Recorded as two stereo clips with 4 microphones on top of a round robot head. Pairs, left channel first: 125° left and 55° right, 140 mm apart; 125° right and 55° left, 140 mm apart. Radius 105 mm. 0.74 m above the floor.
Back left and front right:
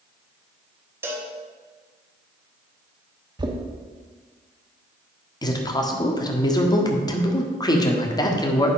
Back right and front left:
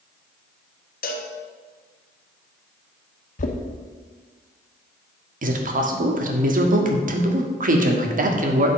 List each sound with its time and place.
1.0 s a cowbell: 125° right, 1.4 m
3.4 s knocking: 110° right, 1.3 m
5.4 s a man speaking: 65° left, 1.7 m